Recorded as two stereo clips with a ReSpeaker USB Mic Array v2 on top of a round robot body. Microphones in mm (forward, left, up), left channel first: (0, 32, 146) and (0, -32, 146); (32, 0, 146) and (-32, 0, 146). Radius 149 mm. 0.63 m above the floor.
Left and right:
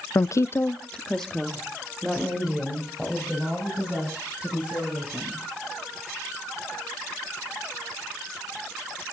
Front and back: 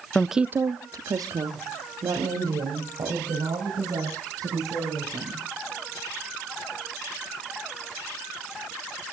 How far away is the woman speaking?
About 0.8 m.